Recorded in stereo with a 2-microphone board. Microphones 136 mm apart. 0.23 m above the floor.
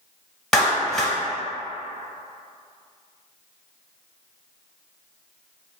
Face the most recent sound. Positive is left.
turn(degrees=5)  # may be behind; listen again after turning